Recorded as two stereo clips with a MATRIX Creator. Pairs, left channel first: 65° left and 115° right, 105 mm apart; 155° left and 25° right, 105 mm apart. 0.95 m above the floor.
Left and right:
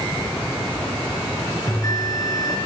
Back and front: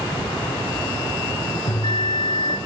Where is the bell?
125° left, 2.5 m.